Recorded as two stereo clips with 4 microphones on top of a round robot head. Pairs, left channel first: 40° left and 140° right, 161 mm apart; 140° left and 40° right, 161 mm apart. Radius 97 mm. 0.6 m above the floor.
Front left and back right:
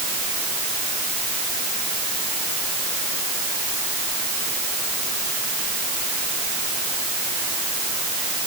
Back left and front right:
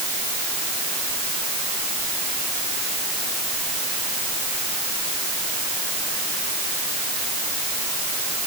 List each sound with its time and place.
Only background noise.